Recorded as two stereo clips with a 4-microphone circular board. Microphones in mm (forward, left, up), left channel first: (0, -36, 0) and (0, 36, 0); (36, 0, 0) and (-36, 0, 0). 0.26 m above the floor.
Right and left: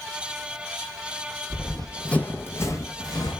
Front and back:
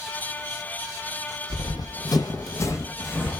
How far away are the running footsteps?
About 0.7 m.